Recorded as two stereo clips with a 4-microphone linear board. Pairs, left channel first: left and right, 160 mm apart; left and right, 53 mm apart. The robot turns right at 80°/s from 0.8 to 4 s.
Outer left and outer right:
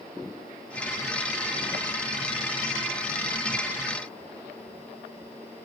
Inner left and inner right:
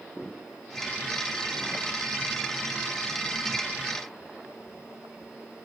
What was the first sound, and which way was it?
Only background noise.